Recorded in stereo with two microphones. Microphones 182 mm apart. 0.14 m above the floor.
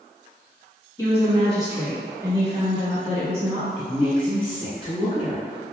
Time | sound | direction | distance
1.0 | a woman speaking | 15° left (ahead or behind) | 1.1 m
3.8 | a woman speaking | 30° left (ahead or behind) | 1.3 m